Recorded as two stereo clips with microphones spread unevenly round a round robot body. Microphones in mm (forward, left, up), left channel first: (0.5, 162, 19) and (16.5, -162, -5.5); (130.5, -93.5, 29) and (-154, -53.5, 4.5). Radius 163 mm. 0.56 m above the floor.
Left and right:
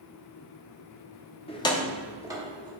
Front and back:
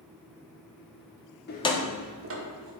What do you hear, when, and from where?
1.5 s keys jangling: 25° left, 0.7 m; by 2.7 s 160° right, 1.5 m